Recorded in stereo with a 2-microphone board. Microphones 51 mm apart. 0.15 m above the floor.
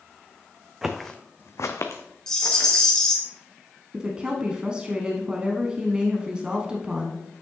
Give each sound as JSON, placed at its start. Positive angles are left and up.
{"t": 0.8, "sound": "footsteps", "side_deg": -10, "distance_m": 0.8}
{"t": 2.3, "sound": "a rattle", "side_deg": 15, "distance_m": 1.9}
{"t": 3.9, "sound": "a woman speaking", "side_deg": -20, "distance_m": 1.0}